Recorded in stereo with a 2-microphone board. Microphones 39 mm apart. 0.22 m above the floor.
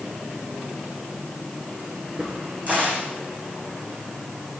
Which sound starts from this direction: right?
A crack, at 2.2 s.